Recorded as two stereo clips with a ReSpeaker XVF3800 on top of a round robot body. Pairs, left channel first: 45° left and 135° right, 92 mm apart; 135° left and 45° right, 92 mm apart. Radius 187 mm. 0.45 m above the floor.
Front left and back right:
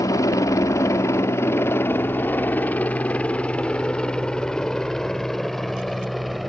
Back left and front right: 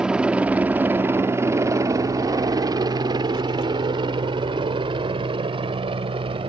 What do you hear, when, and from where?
0.0 s a helicopter: 30° left; by 6.5 s 45° right